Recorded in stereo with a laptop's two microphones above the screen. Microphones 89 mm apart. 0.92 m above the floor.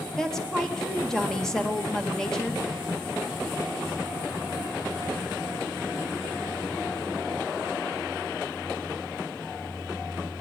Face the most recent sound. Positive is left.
turn(degrees=5)  # may be behind; listen again after turning